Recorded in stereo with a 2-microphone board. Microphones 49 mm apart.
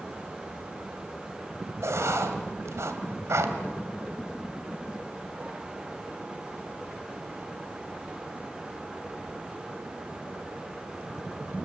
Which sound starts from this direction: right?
Writing, at 1.8 s.